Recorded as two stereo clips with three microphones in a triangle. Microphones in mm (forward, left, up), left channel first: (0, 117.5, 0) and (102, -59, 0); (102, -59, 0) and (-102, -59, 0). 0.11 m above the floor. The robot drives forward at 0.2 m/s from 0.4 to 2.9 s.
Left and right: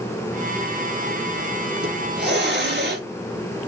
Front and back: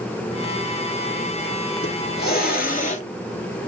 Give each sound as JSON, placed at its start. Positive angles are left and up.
{"t": 1.8, "sound": "a hiss", "azimuth_deg": -30, "distance_m": 0.7}